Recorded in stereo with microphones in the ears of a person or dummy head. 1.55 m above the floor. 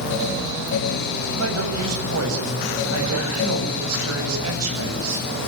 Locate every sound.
1.4 s a man speaking: 85° right, 7.5 m